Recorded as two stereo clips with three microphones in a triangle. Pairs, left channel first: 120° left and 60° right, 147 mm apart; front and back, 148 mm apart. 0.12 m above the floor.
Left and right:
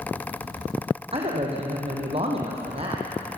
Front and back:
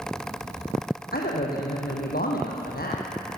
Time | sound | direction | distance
1.1 | a man speaking | 10° right | 4.5 m